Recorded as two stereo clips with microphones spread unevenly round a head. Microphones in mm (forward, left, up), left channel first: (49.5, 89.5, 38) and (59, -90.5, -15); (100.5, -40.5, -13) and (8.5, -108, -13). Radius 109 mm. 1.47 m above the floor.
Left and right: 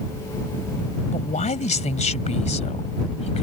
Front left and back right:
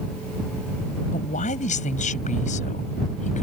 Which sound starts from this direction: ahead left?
A man speaking, at 1.1 s.